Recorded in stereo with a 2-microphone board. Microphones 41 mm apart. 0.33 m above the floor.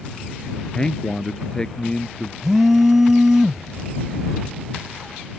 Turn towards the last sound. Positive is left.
turn(degrees=-10)  # may be behind; listen again after turning